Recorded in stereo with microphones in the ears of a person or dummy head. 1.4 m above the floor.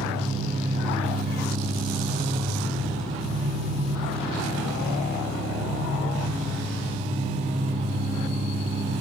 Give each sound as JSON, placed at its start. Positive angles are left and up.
{"t": 0.0, "sound": "an engine running", "side_deg": -40, "distance_m": 1.3}